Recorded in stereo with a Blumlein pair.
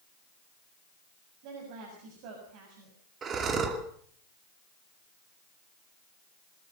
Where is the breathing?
25° right, 2.5 m.